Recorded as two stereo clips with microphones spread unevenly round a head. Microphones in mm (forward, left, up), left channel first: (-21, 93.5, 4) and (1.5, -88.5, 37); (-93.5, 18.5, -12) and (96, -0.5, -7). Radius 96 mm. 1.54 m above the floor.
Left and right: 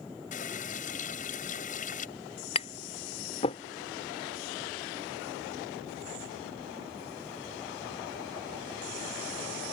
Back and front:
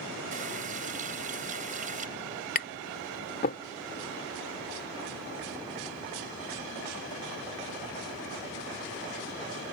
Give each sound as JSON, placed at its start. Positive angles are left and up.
{"t": 0.3, "sound": "a running tap", "azimuth_deg": 45}
{"t": 2.5, "sound": "tapping", "azimuth_deg": 160}